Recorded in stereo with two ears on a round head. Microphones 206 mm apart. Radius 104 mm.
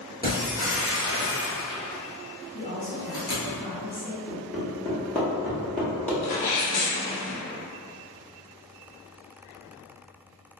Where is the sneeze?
80° left, 1.0 m.